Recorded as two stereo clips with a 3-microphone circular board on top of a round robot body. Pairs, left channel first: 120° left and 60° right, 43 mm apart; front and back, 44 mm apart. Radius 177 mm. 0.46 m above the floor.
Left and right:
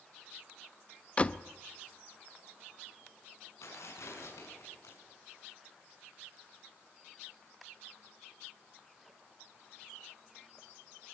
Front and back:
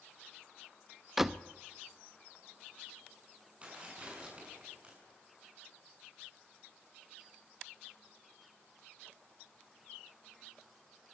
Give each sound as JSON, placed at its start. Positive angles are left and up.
{"t": 1.2, "sound": "a door slam", "azimuth_deg": 105, "distance_m": 0.9}
{"t": 3.6, "sound": "tearing paper", "azimuth_deg": 115, "distance_m": 7.0}